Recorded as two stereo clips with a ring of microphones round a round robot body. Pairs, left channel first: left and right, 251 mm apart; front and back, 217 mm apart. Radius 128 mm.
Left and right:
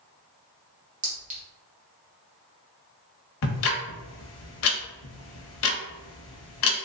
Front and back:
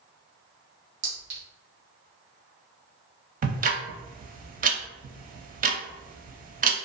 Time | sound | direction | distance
1.0 | a clink | 150° right | 1.1 m
3.4 | ticking | 125° left | 0.5 m